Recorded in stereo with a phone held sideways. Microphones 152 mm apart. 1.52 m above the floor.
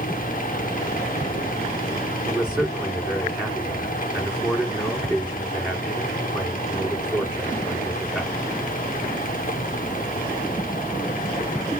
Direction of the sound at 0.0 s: 65° left (ahead or behind).